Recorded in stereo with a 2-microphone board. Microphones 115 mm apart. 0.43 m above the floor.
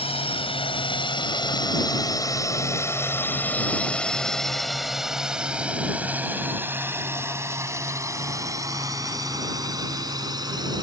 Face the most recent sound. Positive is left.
turn(degrees=-35)  # may be behind; listen again after turning